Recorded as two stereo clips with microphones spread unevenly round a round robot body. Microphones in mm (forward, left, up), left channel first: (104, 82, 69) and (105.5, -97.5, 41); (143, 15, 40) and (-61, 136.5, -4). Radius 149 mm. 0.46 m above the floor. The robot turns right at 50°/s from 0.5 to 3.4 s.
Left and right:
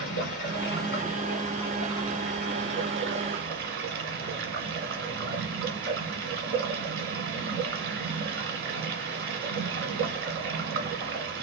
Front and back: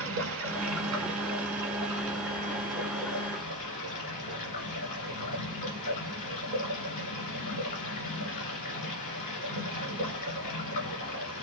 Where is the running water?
120° left, 1.5 m; by 11.4 s 95° right, 1.5 m.